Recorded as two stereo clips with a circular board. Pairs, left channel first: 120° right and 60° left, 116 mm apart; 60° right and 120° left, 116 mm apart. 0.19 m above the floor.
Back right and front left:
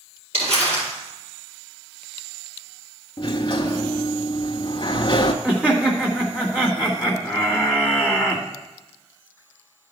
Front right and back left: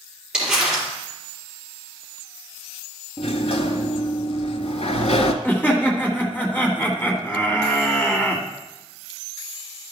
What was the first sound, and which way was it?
Crumpling, 35° left.